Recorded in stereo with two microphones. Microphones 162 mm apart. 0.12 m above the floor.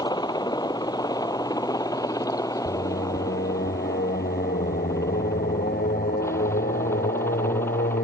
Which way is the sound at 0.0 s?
25° left (ahead or behind).